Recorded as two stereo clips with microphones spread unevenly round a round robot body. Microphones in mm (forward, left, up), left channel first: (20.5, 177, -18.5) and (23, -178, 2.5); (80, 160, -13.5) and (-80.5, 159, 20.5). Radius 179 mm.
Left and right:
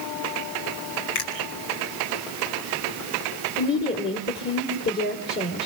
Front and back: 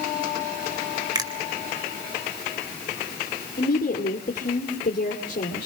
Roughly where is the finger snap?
Behind left.